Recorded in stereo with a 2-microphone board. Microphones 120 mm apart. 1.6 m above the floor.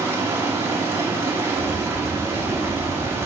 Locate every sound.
0.0 s running water: 20° right (ahead or behind), 1.3 m
1.6 s a bird: 15° left (ahead or behind), 1.5 m